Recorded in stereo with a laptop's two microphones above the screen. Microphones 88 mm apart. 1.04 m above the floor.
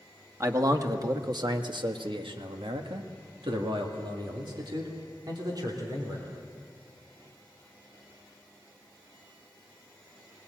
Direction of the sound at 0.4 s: 35° right (ahead or behind).